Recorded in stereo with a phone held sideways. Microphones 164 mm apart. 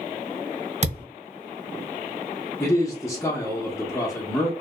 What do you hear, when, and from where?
0.8 s a thud: 45° right (ahead or behind), 1.2 m
2.6 s a man speaking: 20° left (ahead or behind), 0.9 m